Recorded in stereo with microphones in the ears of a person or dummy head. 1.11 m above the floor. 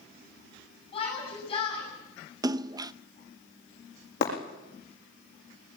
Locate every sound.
0.9 s a shout: 25° left (ahead or behind), 7 m
2.4 s a splash: 15° right (ahead or behind), 0.7 m
4.2 s breaking glass: 50° left (ahead or behind), 7 m